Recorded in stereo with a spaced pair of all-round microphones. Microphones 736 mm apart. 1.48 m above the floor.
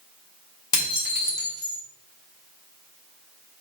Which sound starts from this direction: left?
Dishes clattering, at 0.7 s.